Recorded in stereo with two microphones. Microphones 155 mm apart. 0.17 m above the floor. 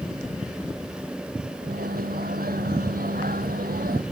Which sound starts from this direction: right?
A microwave, at 1.6 s.